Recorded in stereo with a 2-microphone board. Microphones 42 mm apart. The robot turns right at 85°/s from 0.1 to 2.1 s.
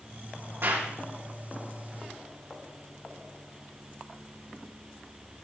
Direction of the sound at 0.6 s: 65° right (ahead or behind).